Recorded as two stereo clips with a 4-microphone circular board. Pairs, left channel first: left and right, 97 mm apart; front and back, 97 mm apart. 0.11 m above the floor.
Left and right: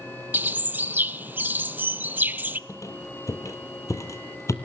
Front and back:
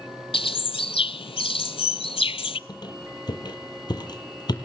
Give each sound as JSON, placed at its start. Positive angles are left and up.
{"t": 0.3, "sound": "a bird", "azimuth_deg": -20, "distance_m": 0.6}
{"t": 2.7, "sound": "a squeak", "azimuth_deg": 35, "distance_m": 2.0}